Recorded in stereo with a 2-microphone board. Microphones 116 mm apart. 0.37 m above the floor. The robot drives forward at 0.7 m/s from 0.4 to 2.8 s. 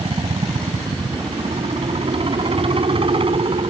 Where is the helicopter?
50° right (ahead or behind).